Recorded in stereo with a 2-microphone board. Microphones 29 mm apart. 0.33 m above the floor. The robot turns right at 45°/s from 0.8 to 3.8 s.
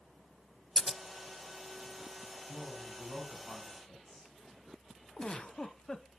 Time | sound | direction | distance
0.8 | scissors | centre (ahead or behind) | 0.5 m
2.5 | a man speaking | 110° left | 2 m
5.2 | a giggle | 35° left (ahead or behind) | 0.6 m